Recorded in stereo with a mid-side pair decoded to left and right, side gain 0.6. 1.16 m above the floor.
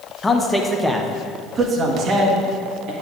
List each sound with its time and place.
0.2 s a man speaking: 20° left, 1.1 m; by 2.9 s 60° right, 2.0 m